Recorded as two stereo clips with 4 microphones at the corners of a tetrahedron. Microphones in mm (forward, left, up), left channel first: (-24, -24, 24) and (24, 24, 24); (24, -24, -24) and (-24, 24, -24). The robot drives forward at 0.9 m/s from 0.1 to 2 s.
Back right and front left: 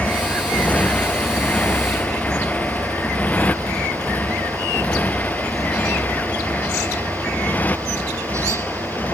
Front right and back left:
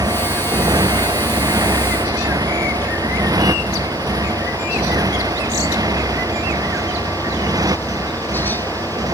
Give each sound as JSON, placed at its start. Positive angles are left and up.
{"t": 0.0, "sound": "a motorcycle", "azimuth_deg": 150}